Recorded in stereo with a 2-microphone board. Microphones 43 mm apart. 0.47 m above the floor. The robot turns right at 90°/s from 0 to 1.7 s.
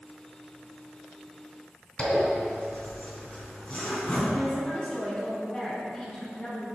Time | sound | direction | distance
2.0 | a zipper | 30° left (ahead or behind) | 4 m
4.3 | a woman speaking | 15° left (ahead or behind) | 4.5 m